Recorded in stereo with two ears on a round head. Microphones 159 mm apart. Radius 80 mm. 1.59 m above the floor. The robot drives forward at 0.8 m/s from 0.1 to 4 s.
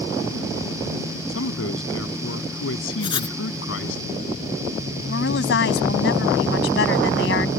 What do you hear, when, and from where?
1.3 s a man speaking: 85° left
3.0 s writing: 30° left (ahead or behind); by 3.4 s 25° left (ahead or behind)
5.1 s a woman speaking: 70° left (ahead or behind)